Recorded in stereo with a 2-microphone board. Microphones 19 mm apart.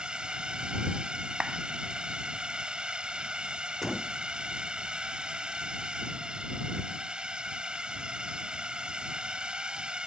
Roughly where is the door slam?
Centre.